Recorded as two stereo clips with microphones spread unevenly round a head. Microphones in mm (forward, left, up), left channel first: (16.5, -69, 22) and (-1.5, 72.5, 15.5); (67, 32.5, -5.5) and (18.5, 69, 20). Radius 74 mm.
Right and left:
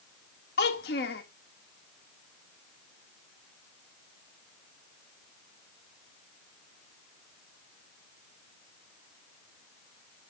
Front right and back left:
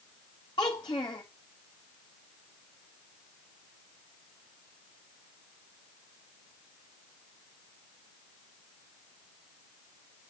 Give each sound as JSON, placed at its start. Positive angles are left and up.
{"t": 0.6, "sound": "a child speaking", "azimuth_deg": -100, "distance_m": 1.4}